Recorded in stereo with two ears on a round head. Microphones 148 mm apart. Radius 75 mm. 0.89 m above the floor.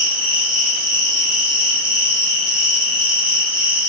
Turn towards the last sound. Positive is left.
turn(degrees=-30)  # may be behind; listen again after turning